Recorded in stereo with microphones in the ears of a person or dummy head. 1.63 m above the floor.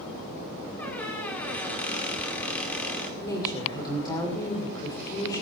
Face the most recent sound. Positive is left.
turn(degrees=20)  # may be behind; listen again after turning